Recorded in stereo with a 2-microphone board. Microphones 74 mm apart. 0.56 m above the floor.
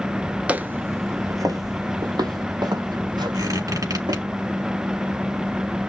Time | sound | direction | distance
0.5 | footsteps | 20° right (ahead or behind) | 0.5 m
3.3 | a squeak | 50° right (ahead or behind) | 3.5 m